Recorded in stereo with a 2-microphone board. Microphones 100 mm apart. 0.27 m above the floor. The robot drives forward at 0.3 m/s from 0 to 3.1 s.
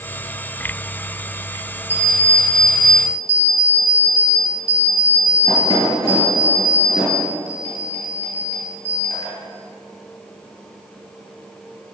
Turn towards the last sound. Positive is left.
turn(degrees=40)  # may be behind; listen again after turning